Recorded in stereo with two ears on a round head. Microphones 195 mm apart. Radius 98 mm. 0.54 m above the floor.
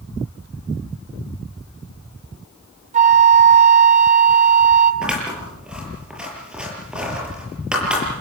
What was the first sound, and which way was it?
A flute, 35° right (ahead or behind).